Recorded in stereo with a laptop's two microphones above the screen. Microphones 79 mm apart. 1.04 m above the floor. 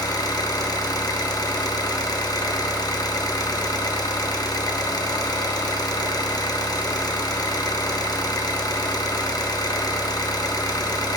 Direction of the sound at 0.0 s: 50° left (ahead or behind).